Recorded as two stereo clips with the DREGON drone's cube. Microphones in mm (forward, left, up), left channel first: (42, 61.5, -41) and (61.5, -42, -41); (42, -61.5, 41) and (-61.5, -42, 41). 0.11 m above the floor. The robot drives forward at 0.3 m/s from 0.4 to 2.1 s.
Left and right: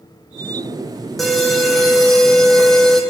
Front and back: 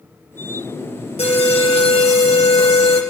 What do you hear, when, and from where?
1.2 s an alarm: 10° left, 2.0 m; by 3.0 s 15° left, 1.7 m